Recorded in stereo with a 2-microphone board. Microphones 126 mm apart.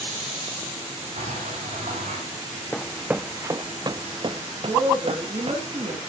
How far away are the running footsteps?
About 0.6 m.